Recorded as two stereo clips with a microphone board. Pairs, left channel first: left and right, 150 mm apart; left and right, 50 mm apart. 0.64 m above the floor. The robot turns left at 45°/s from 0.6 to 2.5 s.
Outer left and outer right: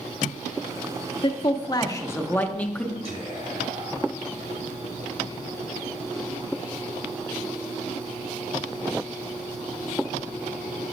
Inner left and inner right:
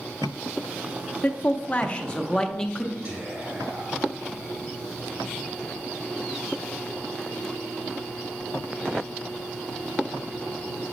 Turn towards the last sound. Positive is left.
turn(degrees=-40)  # may be behind; listen again after turning